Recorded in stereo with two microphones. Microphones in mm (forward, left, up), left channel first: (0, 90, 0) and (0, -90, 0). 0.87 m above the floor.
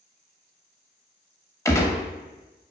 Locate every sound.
1.6 s a gunshot: 15° left (ahead or behind), 0.7 m